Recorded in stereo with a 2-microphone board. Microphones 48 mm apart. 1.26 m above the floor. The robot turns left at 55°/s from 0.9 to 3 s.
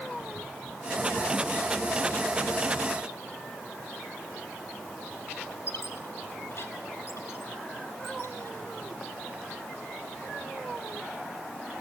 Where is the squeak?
55° left (ahead or behind), 2.5 m.